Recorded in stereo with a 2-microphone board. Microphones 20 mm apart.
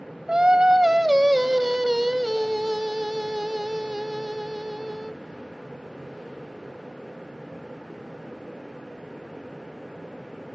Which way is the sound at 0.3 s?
40° right (ahead or behind).